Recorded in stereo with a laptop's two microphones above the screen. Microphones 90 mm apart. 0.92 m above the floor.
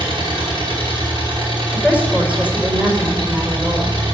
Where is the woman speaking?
15° right (ahead or behind), 4.5 m.